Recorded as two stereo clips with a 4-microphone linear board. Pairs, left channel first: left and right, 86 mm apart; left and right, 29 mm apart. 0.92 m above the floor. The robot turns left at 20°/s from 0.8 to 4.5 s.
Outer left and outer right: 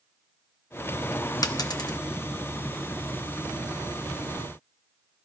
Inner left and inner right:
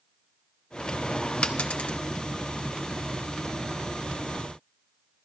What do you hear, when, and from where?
1.4 s a dropped coin: 45° left (ahead or behind), 0.8 m; by 2.0 s 55° left (ahead or behind), 0.8 m